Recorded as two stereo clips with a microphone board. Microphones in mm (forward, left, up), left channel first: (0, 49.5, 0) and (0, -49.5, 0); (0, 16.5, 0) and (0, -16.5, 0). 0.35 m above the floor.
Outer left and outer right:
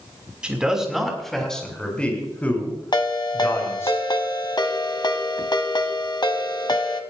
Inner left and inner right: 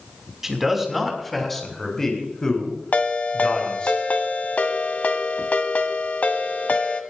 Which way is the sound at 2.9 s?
50° left (ahead or behind).